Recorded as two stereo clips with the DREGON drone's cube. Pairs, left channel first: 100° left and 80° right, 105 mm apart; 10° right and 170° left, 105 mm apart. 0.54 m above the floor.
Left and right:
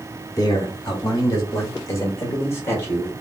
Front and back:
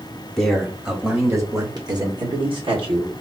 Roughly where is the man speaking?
Left.